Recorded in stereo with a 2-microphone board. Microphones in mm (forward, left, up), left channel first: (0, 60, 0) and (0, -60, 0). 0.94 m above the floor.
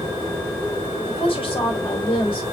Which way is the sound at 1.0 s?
50° left (ahead or behind).